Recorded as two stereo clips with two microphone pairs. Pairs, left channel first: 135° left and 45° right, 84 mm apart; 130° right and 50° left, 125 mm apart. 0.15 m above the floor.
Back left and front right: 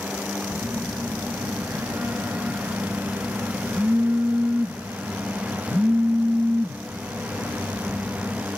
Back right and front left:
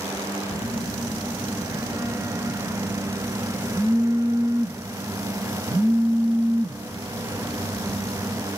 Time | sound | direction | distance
0.5 | a phone buzzing | 10° left | 1.1 m